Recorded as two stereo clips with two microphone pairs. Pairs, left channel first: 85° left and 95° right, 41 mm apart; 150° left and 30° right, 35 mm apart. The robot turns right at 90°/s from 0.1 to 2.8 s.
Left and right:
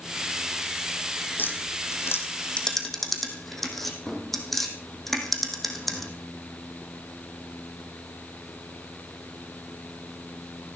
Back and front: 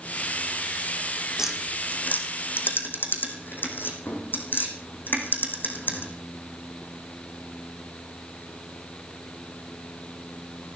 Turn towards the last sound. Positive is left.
turn(degrees=170)